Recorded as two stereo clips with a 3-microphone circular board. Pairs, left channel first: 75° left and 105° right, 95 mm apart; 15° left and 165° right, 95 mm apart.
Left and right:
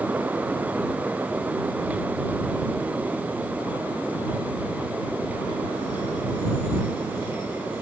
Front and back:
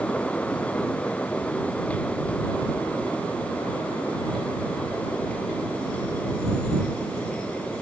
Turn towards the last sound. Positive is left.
No sound to turn to.